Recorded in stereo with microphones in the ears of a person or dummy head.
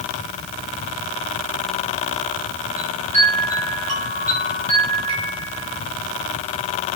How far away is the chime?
About 2 m.